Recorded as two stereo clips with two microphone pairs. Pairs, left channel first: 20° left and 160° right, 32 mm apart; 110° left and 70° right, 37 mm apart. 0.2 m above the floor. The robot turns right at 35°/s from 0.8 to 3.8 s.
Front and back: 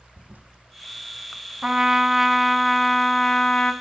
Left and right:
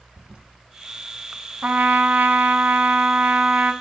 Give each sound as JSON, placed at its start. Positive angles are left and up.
{"t": 0.2, "sound": "a toilet flushing", "azimuth_deg": -130, "distance_m": 0.5}
{"t": 1.6, "sound": "a trumpet", "azimuth_deg": -105, "distance_m": 0.6}